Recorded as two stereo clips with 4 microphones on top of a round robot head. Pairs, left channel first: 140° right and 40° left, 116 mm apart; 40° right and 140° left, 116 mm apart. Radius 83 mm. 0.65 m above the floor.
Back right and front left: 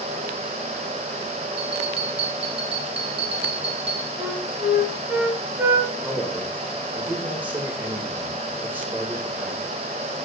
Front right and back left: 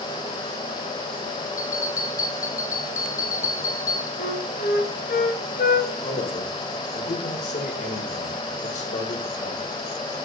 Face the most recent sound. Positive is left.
turn(degrees=-35)